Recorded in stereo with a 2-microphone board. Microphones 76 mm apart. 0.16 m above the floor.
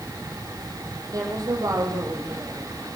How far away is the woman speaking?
About 4.5 m.